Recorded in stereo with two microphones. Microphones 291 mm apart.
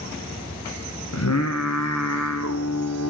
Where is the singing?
65° left (ahead or behind), 1.3 m.